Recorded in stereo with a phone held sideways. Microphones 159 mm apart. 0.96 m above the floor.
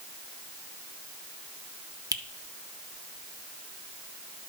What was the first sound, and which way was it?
A finger snap, 25° right (ahead or behind).